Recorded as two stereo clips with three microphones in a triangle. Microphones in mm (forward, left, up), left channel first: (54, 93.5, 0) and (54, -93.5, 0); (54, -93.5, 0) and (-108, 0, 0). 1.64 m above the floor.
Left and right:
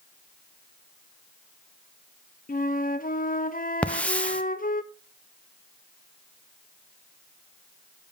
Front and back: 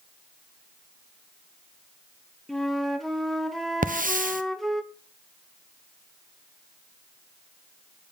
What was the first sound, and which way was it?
A flute, 60° left.